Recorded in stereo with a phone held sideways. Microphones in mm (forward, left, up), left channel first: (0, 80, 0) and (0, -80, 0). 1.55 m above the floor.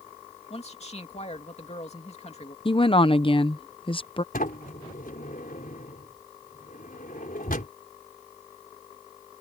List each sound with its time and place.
0.5 s a man speaking: 40° left (ahead or behind)
2.6 s a woman speaking: 35° left (ahead or behind)
4.3 s a sliding door: 65° left (ahead or behind)